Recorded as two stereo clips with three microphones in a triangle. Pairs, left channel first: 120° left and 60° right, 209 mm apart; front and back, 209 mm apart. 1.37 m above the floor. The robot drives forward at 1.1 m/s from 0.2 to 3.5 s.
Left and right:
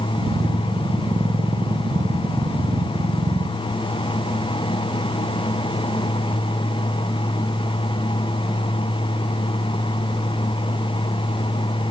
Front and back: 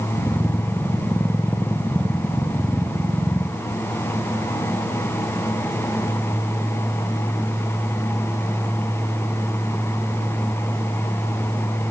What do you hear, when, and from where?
Only background noise.